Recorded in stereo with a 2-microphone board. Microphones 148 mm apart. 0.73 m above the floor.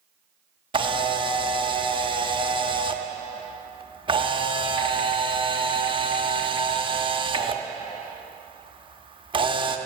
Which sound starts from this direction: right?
A camera shutter, at 0.7 s.